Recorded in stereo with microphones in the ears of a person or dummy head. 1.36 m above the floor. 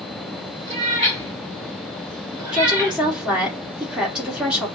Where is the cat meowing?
30° right (ahead or behind), 3 m; by 3.0 s 10° right (ahead or behind), 2 m.